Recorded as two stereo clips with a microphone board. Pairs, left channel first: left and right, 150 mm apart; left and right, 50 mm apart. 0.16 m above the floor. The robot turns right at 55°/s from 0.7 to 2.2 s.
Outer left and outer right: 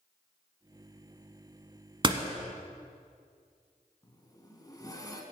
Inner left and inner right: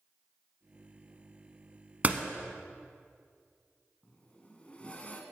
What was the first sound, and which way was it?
A door slam, 35° right (ahead or behind).